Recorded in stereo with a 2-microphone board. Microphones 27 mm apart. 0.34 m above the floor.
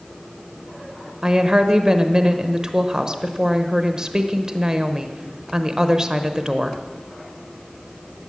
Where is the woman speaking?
30° right (ahead or behind), 1.0 m.